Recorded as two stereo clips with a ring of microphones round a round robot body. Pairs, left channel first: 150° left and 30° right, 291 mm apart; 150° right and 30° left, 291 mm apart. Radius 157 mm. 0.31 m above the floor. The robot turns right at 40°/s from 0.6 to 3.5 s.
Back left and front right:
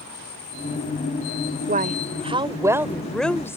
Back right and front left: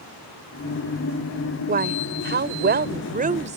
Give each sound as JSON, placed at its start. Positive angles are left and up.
{"t": 1.7, "sound": "a woman speaking", "azimuth_deg": 0}